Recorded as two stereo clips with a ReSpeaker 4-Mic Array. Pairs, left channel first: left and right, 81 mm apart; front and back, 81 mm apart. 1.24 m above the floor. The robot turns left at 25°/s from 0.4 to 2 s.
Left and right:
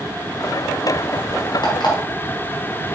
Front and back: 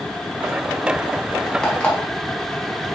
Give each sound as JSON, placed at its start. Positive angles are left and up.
{"t": 1.6, "sound": "an alarm clock", "azimuth_deg": 80, "distance_m": 4.5}